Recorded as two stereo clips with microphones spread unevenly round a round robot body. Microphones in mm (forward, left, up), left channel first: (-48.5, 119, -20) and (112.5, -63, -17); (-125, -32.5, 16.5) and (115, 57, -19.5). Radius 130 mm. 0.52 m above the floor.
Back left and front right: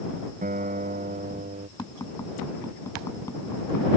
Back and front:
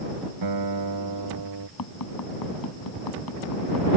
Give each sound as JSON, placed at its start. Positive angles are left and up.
{"t": 0.4, "sound": "a guitar", "azimuth_deg": 10}
{"t": 1.8, "sound": "tapping", "azimuth_deg": -150}